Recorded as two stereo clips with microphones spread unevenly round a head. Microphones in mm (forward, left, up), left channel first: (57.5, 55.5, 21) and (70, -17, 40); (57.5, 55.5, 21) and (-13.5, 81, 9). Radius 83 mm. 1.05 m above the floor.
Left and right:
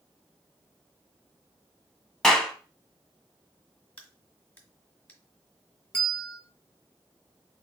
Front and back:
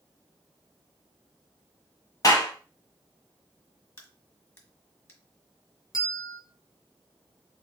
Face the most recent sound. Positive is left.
turn(degrees=25)